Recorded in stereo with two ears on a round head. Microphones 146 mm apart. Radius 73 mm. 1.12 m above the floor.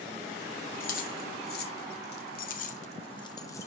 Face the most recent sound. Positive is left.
turn(degrees=15)  # may be behind; listen again after turning